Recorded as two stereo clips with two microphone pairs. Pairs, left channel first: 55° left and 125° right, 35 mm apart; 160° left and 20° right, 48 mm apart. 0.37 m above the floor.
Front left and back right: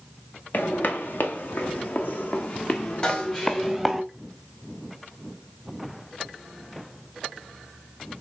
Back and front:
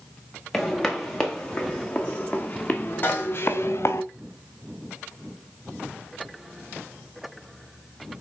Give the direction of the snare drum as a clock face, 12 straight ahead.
8 o'clock.